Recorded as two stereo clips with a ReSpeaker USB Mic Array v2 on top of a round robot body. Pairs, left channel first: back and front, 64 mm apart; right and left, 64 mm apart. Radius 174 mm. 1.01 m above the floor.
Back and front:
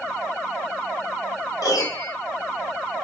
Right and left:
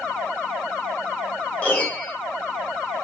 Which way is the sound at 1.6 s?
155° right.